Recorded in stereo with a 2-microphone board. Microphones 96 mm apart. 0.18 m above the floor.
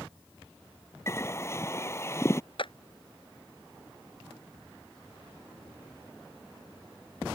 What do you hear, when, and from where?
1.1 s a bird: 25° left (ahead or behind)
2.6 s a clap: 60° left (ahead or behind)